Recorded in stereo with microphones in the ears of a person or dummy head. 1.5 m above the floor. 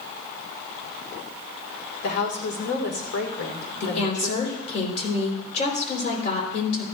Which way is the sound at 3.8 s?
50° left (ahead or behind).